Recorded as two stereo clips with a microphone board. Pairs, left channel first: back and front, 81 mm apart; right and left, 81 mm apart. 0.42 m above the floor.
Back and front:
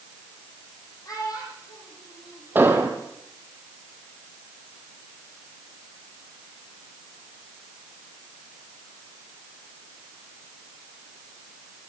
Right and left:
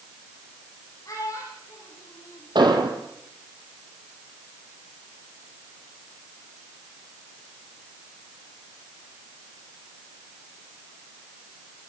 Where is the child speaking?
140° right, 9.5 m; by 3.0 s 150° right, 11.5 m.